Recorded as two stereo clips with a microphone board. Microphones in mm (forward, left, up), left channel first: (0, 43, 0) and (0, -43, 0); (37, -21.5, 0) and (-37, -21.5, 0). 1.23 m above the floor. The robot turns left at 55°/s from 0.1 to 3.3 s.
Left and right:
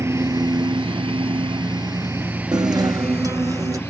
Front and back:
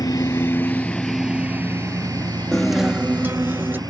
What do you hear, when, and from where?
0.0 s a lawn mower: 35° right; by 3.9 s 150° left
2.5 s a guitar: 80° right; by 3.8 s 125° right